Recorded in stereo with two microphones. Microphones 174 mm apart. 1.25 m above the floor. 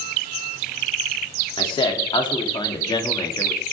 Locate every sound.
1.6 s a man speaking: 30° left (ahead or behind), 3.5 m; by 3.6 s 25° left (ahead or behind), 2.5 m